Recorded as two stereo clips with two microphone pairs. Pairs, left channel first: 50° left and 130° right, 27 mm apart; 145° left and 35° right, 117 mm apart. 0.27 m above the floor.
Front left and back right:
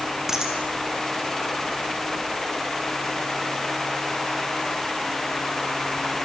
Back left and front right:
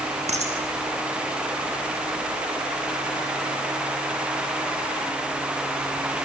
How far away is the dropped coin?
About 4.5 m.